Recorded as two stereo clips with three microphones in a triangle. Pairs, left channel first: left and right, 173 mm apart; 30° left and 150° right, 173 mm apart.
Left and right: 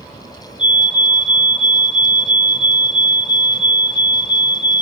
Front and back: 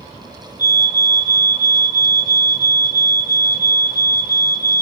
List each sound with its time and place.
0.6 s a fire alarm: 30° left, 4.5 m